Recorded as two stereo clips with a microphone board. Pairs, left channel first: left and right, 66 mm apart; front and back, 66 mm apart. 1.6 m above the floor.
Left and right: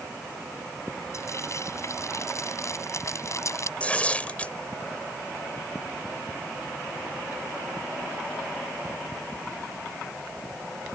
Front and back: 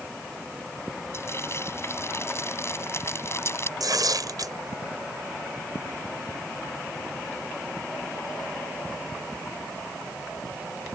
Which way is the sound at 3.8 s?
160° left.